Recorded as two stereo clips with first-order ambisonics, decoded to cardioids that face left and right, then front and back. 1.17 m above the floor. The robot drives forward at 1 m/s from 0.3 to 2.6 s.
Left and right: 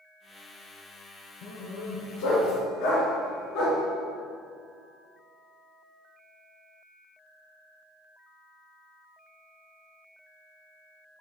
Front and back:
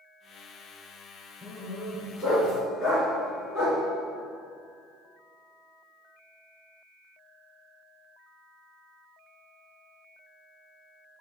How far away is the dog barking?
About 4 m.